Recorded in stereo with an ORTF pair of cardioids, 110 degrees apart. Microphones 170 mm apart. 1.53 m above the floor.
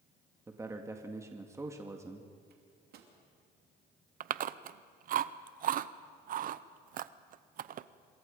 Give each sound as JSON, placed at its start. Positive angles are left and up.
{"t": 0.5, "sound": "a man speaking", "azimuth_deg": -15, "distance_m": 2.0}
{"t": 2.5, "sound": "a microwave", "azimuth_deg": -65, "distance_m": 3.0}
{"t": 4.2, "sound": "chewing", "azimuth_deg": -55, "distance_m": 0.7}